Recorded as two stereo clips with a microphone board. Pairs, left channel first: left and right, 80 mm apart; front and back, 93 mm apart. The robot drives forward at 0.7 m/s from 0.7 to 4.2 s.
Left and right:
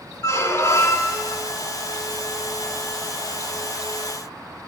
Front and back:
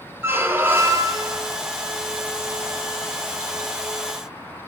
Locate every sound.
0.2 s a squeak: 120° left, 0.7 m; by 1.4 s 150° left, 1.1 m